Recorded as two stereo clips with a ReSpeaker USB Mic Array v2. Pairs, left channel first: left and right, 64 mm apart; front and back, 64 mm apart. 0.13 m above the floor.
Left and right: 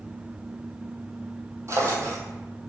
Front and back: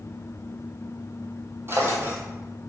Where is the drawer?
130° right, 1.0 m.